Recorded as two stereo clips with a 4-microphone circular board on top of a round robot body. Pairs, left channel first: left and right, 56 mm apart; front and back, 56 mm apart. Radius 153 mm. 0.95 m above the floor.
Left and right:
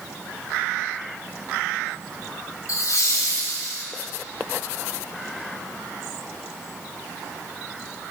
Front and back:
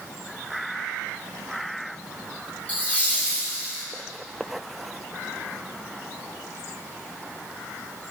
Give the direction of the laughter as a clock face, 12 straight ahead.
10 o'clock.